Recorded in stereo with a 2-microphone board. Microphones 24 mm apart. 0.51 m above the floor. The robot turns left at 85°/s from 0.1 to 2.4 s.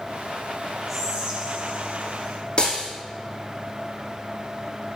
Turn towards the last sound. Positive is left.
turn(degrees=40)  # may be behind; listen again after turning